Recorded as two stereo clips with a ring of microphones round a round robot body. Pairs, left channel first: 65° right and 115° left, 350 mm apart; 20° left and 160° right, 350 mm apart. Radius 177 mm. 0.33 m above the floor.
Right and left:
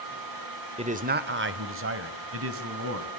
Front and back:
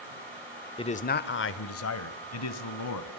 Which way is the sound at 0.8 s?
75° left.